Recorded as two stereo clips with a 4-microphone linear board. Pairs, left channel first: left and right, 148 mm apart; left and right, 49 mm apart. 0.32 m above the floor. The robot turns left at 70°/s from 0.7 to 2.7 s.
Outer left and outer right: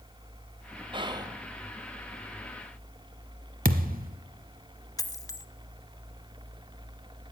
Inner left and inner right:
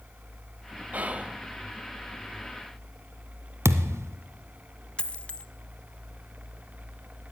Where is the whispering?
105° right, 1.2 m; by 1.4 s 140° right, 1.2 m.